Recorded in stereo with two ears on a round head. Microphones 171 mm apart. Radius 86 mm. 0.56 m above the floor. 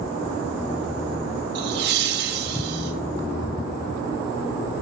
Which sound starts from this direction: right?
Laughter, at 1.6 s.